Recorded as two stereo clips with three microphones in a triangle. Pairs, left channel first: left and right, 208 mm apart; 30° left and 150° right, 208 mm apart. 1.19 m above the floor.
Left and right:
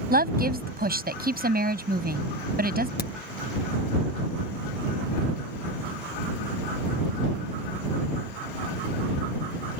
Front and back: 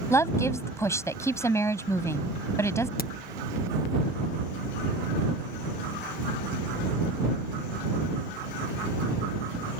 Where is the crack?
60° left.